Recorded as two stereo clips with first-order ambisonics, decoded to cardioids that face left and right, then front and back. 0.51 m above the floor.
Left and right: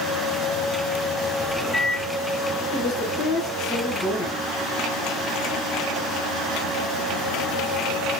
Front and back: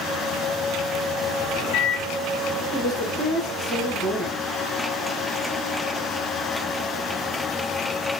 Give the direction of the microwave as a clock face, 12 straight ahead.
12 o'clock.